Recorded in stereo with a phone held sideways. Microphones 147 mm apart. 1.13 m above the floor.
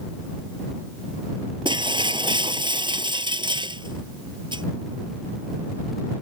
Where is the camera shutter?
I don't hear a camera shutter.